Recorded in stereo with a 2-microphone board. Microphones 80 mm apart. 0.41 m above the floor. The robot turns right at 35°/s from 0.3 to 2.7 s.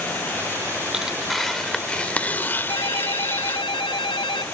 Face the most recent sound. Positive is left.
turn(degrees=85)